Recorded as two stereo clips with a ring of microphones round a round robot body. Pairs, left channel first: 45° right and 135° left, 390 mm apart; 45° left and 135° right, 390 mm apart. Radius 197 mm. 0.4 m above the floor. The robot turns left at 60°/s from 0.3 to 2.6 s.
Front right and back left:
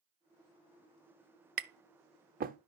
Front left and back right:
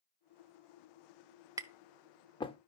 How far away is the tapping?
About 0.6 m.